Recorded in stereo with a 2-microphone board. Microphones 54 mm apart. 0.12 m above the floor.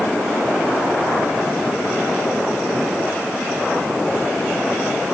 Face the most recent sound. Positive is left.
No sound to turn to.